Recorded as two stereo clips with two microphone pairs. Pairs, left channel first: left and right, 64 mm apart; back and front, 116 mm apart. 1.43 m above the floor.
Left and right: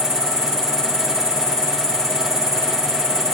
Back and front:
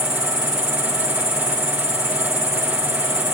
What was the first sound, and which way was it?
An insect, 95° right.